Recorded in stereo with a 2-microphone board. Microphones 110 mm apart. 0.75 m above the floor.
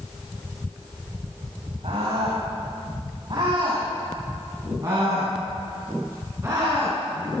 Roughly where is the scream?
Right.